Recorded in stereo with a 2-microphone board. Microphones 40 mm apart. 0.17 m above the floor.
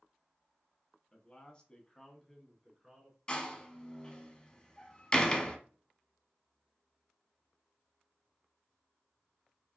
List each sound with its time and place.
1.1 s a man speaking: 30° left (ahead or behind), 1.2 m; by 3.2 s 5° right (ahead or behind), 1.3 m
3.3 s a door slam: 20° left (ahead or behind), 0.8 m